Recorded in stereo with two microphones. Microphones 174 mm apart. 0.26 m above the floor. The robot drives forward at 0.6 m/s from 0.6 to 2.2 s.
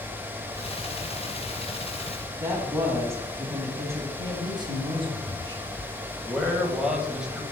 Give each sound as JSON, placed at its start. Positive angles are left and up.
{"t": 2.4, "sound": "a woman speaking", "side_deg": -15, "distance_m": 2.0}
{"t": 4.2, "sound": "a man speaking", "side_deg": -25, "distance_m": 1.2}
{"t": 6.3, "sound": "a man speaking", "side_deg": -5, "distance_m": 1.1}